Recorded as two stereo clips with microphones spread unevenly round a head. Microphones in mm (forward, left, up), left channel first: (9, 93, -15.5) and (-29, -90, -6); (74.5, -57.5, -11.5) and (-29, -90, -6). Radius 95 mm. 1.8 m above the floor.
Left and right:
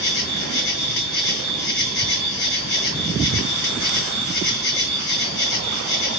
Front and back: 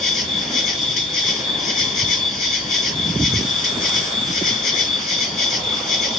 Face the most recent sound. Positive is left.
turn(degrees=45)